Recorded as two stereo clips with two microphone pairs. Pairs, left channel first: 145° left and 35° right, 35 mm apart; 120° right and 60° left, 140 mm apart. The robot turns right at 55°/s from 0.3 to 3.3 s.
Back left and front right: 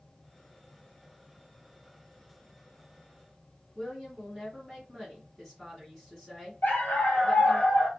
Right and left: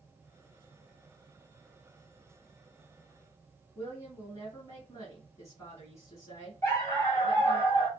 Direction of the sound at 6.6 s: 160° left.